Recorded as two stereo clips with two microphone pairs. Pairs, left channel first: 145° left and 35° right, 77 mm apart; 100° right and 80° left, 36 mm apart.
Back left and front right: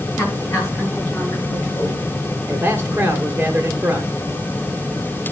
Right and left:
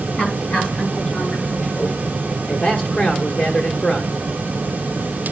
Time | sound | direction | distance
0.1 | a woman speaking | 155° right | 7 m
2.5 | a man speaking | 85° right | 1.3 m